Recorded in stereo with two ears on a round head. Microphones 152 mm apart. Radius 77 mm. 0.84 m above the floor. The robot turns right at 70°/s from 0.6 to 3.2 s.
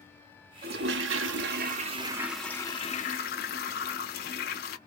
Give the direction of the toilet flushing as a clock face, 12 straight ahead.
4 o'clock.